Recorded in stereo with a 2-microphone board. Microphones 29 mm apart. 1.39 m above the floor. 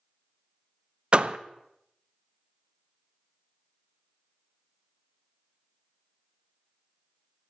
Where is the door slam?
35° right (ahead or behind), 0.7 m.